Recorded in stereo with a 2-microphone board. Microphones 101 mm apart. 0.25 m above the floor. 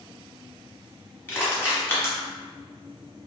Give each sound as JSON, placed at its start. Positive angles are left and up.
{"t": 1.3, "sound": "crushing", "side_deg": 25, "distance_m": 1.1}